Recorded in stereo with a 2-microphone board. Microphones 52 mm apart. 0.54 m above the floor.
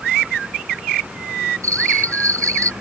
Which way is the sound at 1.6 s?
75° right (ahead or behind).